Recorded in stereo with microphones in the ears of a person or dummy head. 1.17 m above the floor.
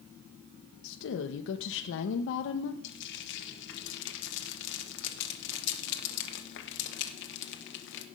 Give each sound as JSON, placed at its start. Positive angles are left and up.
{"t": 0.8, "sound": "a woman speaking", "side_deg": 70, "distance_m": 0.8}
{"t": 2.8, "sound": "frying", "side_deg": 60, "distance_m": 1.4}